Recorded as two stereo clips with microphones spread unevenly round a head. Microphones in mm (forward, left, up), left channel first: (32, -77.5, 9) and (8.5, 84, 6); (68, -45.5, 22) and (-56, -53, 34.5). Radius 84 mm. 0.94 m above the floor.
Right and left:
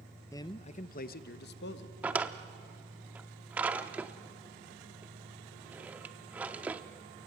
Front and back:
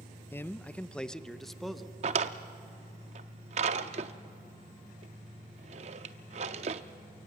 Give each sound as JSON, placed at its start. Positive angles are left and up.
{"t": 0.3, "sound": "a man speaking", "azimuth_deg": -30, "distance_m": 0.5}
{"t": 2.0, "sound": "a drawer", "azimuth_deg": 180, "distance_m": 0.5}